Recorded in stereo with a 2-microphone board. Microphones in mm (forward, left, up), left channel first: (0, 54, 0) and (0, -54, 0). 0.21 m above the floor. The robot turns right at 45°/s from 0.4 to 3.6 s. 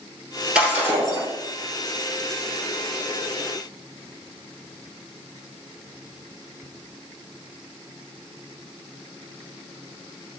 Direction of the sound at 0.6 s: 170° right.